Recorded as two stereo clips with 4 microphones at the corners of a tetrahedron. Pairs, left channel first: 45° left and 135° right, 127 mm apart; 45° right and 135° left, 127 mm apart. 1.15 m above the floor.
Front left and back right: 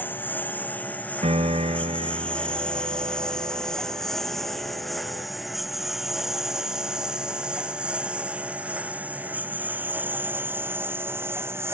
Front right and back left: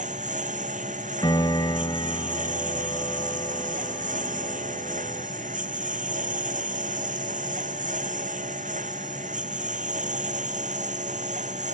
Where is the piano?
100° right.